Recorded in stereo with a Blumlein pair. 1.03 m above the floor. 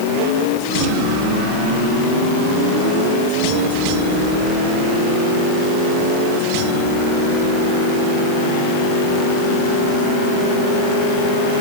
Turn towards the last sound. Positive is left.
No sound to turn to.